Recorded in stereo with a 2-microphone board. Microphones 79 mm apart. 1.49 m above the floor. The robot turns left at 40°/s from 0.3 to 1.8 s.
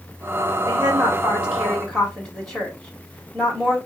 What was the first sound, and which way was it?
A woman speaking, 140° right.